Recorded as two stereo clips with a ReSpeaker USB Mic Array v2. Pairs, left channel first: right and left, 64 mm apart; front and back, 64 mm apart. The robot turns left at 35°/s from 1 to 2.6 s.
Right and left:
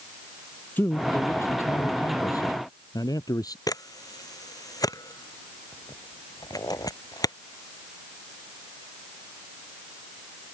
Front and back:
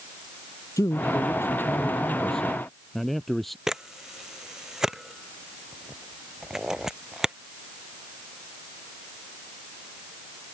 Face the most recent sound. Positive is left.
turn(degrees=-100)